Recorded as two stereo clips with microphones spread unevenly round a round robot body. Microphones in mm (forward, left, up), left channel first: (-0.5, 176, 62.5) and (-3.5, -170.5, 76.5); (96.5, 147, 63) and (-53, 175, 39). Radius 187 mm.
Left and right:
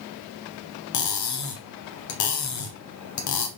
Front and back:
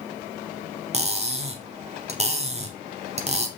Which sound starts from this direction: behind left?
Cutlery clinking, at 0.9 s.